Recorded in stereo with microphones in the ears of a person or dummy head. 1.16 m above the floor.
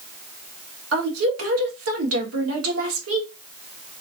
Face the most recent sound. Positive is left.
turn(degrees=-80)